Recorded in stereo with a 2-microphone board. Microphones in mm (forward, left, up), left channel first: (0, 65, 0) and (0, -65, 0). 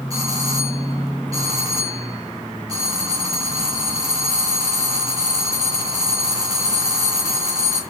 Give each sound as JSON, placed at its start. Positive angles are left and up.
{"t": 0.1, "sound": "a doorbell", "side_deg": -25, "distance_m": 6.5}